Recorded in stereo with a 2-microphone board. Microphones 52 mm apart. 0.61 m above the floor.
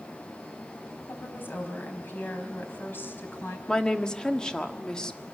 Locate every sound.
1.1 s a woman speaking: 45° left (ahead or behind), 4 m
3.7 s a woman speaking: 15° left (ahead or behind), 1.4 m